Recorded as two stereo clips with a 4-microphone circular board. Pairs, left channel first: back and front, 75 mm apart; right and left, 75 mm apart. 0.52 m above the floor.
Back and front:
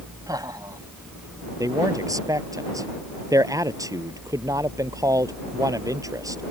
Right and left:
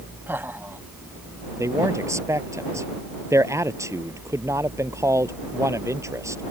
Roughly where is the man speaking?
Ahead left.